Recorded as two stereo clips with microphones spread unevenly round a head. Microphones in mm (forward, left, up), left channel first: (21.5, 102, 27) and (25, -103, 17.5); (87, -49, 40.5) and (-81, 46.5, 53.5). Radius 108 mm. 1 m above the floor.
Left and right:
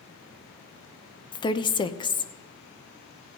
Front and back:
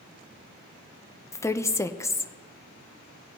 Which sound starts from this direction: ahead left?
A woman speaking, at 1.3 s.